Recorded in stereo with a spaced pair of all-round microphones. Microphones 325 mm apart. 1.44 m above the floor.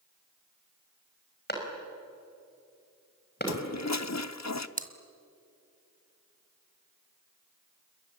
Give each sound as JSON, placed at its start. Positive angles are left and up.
{"t": 1.5, "sound": "a clap", "side_deg": 30, "distance_m": 5.5}
{"t": 3.5, "sound": "a toilet flushing", "side_deg": 55, "distance_m": 0.7}
{"t": 4.8, "sound": "chewing", "side_deg": -25, "distance_m": 1.6}